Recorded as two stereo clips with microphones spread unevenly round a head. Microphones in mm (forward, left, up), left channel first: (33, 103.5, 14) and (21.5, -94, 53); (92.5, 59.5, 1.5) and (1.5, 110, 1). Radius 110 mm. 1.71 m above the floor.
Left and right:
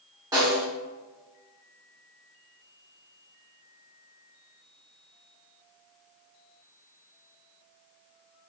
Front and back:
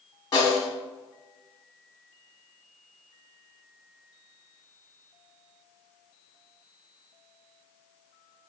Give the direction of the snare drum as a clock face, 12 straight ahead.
2 o'clock.